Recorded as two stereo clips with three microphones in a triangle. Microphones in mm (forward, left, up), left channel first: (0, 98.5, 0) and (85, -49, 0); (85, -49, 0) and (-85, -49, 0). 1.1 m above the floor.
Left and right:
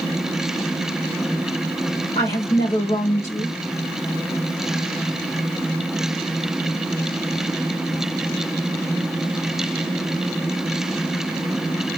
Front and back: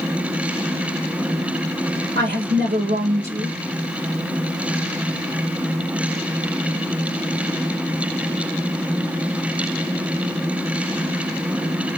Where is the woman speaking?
175° left, 2 m.